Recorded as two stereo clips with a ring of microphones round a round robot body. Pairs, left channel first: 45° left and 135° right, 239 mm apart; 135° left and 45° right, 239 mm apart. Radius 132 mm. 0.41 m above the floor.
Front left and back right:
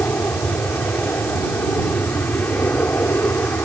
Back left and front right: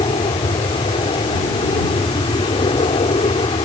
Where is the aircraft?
115° left.